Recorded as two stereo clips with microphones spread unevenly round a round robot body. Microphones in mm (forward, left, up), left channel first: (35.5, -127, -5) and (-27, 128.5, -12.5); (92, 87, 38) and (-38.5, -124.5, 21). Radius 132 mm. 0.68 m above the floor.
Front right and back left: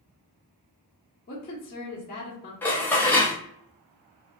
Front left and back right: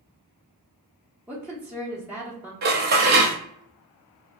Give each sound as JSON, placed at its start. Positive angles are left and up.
{"t": 1.3, "sound": "a woman speaking", "azimuth_deg": -50, "distance_m": 0.8}
{"t": 2.6, "sound": "dishes clattering", "azimuth_deg": -160, "distance_m": 0.7}